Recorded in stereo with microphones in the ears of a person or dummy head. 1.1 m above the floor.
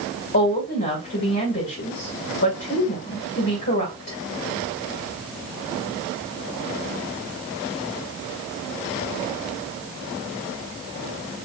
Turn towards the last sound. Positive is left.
turn(degrees=50)  # may be behind; listen again after turning